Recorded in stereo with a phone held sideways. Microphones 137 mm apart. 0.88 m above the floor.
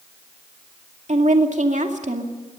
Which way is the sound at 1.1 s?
65° right (ahead or behind).